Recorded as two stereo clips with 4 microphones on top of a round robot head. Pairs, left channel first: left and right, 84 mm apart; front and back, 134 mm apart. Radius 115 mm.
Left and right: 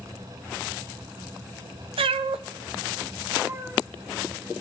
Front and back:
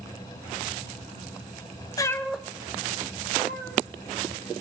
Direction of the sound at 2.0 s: 70° right.